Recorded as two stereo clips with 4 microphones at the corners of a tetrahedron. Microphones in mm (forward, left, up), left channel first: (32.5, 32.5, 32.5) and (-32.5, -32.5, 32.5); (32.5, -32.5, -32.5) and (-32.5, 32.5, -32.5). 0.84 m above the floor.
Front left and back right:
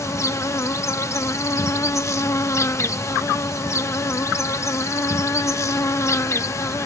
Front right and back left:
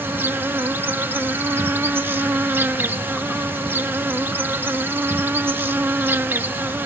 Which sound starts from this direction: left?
An insect, at 0.0 s.